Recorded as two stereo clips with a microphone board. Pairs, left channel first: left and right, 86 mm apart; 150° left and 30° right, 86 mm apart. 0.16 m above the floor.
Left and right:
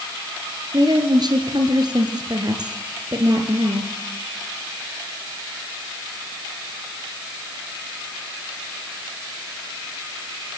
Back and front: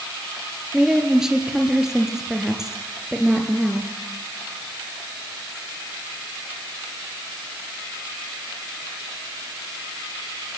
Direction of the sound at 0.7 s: 115° right.